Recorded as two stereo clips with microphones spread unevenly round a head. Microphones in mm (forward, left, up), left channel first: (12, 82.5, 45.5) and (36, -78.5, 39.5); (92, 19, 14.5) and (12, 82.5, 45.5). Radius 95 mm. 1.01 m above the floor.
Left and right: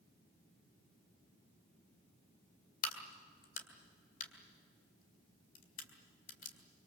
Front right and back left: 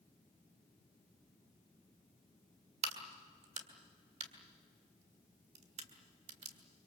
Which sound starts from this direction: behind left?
A crack, at 2.8 s.